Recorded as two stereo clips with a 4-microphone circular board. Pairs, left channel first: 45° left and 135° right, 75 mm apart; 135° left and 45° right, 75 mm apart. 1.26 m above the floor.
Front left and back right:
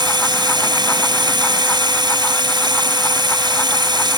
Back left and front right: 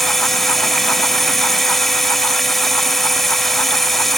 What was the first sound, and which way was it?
Running water, 135° right.